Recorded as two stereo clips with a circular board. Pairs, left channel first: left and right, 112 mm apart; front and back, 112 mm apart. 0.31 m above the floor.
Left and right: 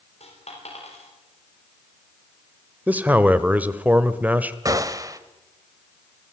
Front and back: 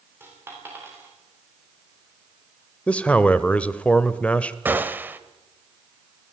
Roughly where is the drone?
No drone in this recording.